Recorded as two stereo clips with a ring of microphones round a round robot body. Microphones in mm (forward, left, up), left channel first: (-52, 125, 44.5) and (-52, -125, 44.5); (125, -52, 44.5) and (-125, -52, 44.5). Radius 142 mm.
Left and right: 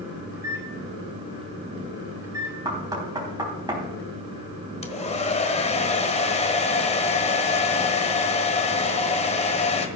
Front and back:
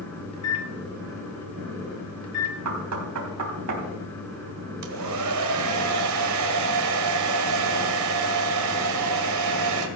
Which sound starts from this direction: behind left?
A hair dryer, at 4.8 s.